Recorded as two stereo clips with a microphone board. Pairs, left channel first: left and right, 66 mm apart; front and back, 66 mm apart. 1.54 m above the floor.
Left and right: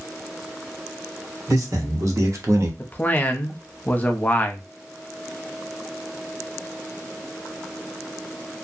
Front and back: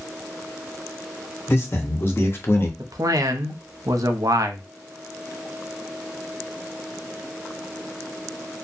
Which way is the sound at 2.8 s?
155° left.